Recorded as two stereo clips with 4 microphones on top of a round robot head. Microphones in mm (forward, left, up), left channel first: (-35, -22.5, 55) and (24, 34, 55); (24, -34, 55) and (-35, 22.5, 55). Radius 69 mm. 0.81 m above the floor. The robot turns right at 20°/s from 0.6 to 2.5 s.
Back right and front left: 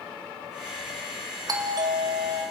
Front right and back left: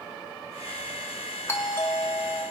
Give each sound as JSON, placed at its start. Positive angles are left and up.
{"t": 1.5, "sound": "a doorbell", "azimuth_deg": 10, "distance_m": 2.5}